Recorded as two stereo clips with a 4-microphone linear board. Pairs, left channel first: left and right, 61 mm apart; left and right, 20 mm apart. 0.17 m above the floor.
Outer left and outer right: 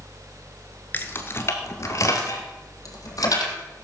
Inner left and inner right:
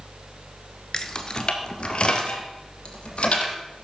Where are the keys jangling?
30° left (ahead or behind), 1.6 m; by 3.5 s 65° left (ahead or behind), 4 m.